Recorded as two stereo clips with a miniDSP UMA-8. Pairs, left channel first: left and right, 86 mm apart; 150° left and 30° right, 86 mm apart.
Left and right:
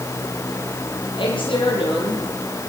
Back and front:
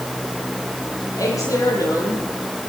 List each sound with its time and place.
1.1 s a woman speaking: 100° left, 9.5 m; by 2.3 s 95° left, 10 m